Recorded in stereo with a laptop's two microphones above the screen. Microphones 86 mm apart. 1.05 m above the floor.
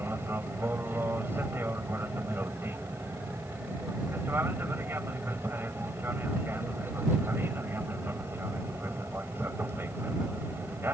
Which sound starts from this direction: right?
An aircraft, at 0.0 s.